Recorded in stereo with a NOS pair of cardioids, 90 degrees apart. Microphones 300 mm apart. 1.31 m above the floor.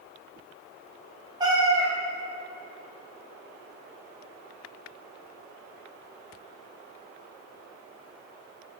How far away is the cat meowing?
About 1.5 m.